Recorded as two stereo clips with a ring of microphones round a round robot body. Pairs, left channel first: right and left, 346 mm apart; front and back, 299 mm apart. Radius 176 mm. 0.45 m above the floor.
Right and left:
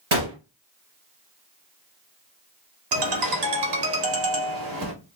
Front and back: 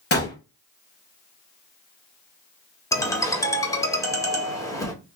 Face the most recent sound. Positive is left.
turn(degrees=80)